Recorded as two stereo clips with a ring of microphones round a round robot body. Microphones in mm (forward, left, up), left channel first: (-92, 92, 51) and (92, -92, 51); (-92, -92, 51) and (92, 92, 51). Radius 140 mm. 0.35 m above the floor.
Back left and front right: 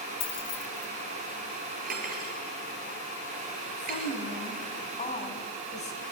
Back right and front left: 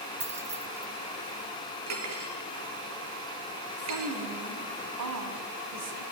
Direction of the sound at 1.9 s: 15° left.